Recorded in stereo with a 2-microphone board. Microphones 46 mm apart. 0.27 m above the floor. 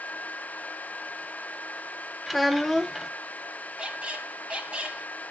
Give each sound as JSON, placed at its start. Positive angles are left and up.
{"t": 2.3, "sound": "a child speaking", "side_deg": 0, "distance_m": 0.6}
{"t": 3.8, "sound": "a squeak", "side_deg": -25, "distance_m": 1.0}